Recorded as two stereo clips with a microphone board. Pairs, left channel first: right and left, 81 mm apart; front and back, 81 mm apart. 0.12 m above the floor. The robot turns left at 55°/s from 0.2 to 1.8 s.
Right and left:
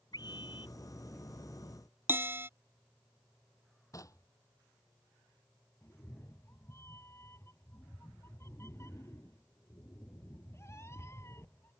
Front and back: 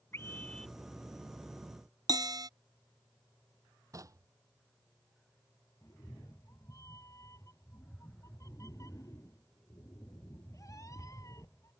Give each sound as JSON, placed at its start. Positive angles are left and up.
{"t": 0.1, "sound": "a scream", "azimuth_deg": -60}
{"t": 2.1, "sound": "a bell", "azimuth_deg": 150}
{"t": 3.9, "sound": "knocking", "azimuth_deg": -135}
{"t": 5.8, "sound": "a cat meowing", "azimuth_deg": -40}